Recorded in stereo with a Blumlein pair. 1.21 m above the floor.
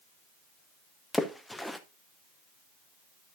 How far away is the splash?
About 0.6 m.